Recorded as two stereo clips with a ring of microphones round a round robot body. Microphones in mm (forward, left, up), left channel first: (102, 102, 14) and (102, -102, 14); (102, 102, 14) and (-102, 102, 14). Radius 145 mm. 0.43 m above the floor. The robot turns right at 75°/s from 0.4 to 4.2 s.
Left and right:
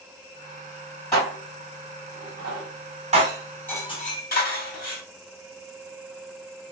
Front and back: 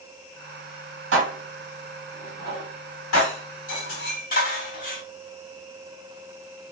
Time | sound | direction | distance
1.1 | dishes clattering | 175° left | 1.8 m